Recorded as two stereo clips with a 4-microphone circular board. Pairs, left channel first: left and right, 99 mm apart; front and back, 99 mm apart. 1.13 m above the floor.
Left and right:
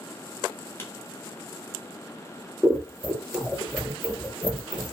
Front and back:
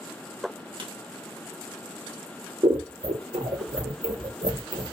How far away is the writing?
About 1.1 m.